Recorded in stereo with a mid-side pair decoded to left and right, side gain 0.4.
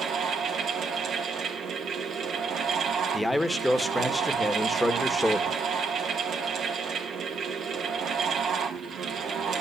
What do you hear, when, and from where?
0.0 s a fan: 65° right, 2.5 m
3.1 s a man speaking: 10° left, 1.8 m